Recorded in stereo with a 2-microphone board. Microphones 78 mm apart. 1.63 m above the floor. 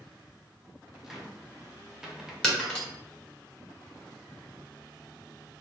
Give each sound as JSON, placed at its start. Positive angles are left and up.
{"t": 1.0, "sound": "a cupboard door", "side_deg": -5, "distance_m": 0.7}
{"t": 2.4, "sound": "breaking glass", "side_deg": 10, "distance_m": 1.1}